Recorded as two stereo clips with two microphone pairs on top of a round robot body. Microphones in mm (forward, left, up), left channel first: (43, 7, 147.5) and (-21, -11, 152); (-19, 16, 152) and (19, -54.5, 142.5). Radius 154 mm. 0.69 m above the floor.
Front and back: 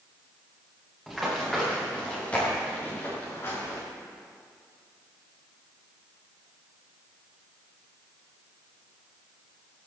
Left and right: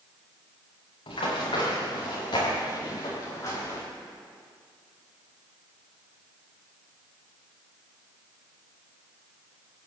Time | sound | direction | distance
1.1 | running footsteps | 105° left | 7 m